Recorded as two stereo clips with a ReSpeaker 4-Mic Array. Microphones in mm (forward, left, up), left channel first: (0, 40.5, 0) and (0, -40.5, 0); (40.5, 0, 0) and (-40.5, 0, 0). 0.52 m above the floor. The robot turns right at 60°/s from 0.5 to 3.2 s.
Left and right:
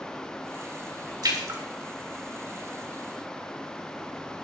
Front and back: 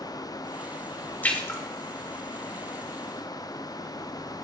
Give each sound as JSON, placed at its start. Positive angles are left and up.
{"t": 1.2, "sound": "a splash", "azimuth_deg": -70, "distance_m": 3.0}